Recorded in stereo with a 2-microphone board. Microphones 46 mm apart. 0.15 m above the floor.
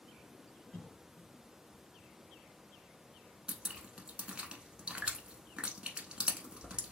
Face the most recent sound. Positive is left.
turn(degrees=-20)  # may be behind; listen again after turning